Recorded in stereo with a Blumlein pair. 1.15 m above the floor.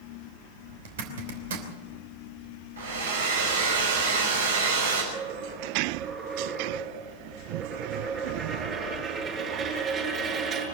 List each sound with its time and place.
0.8 s a zipper: 60° right, 3 m
2.8 s a hair dryer: 70° right, 5.5 m
5.1 s a dropped coin: 25° right, 7 m